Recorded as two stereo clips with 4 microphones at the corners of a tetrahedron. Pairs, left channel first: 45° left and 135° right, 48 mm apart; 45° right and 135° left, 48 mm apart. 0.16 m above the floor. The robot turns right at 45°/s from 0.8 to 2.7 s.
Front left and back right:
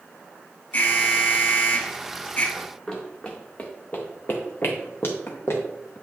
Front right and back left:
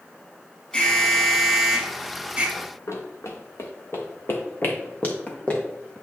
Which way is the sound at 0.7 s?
10° left.